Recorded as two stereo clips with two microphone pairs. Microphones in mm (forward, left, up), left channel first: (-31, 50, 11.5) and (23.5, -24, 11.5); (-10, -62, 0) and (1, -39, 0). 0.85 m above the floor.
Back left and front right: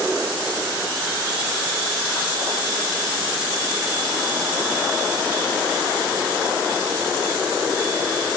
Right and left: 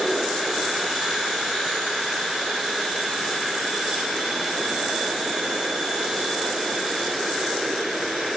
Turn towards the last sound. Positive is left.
No sound to turn to.